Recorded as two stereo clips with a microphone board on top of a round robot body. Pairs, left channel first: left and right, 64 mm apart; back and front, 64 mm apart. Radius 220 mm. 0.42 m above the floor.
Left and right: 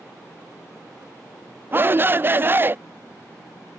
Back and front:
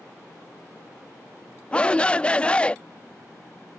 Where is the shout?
120° right.